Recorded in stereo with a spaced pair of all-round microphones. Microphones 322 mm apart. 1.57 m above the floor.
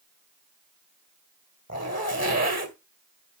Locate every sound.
1.7 s a zipper: 55° right (ahead or behind), 2 m